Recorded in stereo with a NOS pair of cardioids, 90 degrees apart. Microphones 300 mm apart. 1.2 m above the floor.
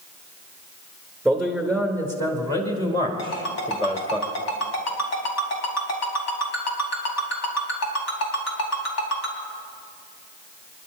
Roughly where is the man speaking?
Ahead.